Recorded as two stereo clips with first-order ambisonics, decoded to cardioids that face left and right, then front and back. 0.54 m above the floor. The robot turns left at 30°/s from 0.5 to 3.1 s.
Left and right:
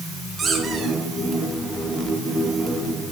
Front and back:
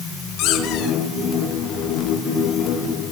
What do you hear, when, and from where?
0.4 s a squeak: 20° right, 3.5 m; by 1.0 s 30° right, 3.5 m